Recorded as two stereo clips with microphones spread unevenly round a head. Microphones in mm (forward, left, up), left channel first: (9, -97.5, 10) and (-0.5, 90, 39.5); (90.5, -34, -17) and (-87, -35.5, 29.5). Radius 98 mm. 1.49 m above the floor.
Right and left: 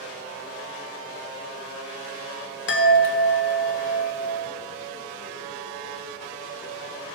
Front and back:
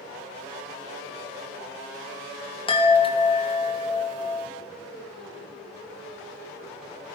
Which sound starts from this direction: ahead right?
A chime, at 2.7 s.